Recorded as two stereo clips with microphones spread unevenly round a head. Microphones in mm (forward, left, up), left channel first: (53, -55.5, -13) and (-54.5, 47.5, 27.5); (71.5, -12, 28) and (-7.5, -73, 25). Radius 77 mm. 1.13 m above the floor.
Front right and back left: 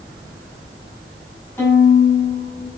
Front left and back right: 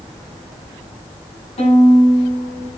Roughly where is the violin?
Ahead left.